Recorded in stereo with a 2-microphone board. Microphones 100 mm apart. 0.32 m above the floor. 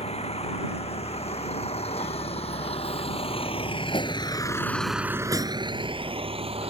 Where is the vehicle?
85° left; by 6.7 s 70° right (ahead or behind).